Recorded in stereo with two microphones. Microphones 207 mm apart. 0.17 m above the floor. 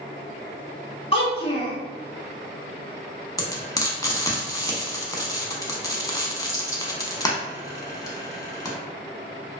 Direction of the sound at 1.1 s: 30° left (ahead or behind).